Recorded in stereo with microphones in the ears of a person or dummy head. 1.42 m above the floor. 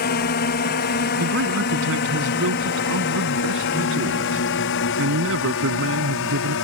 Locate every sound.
0.0 s a drone: 45° left (ahead or behind); by 6.7 s 65° left (ahead or behind)
1.2 s a man speaking: 70° right (ahead or behind)